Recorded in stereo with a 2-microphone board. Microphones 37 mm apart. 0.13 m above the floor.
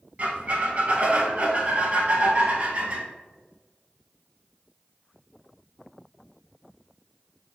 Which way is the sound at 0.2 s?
35° right (ahead or behind).